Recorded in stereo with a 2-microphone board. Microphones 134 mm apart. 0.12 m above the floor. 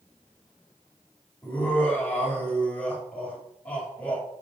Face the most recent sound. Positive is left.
turn(degrees=10)  # may be behind; listen again after turning